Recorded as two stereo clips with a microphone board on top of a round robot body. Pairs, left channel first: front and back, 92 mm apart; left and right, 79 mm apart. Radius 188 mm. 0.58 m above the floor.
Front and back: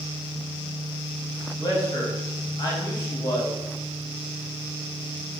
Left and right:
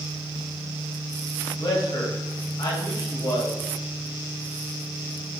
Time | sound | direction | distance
1.6 | a man speaking | 45° left | 3 m